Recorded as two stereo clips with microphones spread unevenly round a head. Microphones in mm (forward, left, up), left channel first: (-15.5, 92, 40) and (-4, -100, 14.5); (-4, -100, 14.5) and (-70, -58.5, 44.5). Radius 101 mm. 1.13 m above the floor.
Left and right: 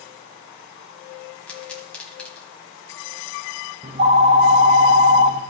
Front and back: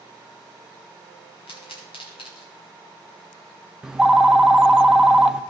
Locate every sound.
1.5 s a pop: 15° left, 1.6 m
3.8 s a phone ringing: 145° right, 0.6 m